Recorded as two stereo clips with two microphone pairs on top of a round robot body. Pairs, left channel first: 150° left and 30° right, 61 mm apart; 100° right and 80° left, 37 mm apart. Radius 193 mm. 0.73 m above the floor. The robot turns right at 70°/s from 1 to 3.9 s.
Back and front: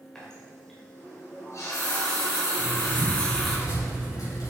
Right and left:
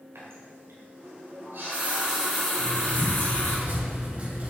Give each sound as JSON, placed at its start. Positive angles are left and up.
{"t": 0.1, "sound": "a running tap", "azimuth_deg": 70, "distance_m": 2.5}
{"t": 2.6, "sound": "writing", "azimuth_deg": 40, "distance_m": 3.5}